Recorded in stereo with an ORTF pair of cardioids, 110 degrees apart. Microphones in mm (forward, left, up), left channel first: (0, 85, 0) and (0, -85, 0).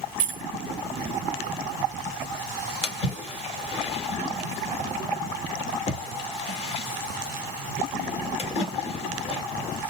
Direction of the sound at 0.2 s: 55° right.